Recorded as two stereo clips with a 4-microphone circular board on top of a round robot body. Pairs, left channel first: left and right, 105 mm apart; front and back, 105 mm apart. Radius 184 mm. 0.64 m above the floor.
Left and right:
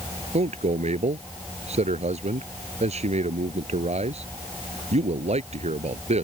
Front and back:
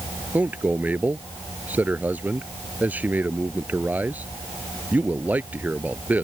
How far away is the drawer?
I don't hear a drawer.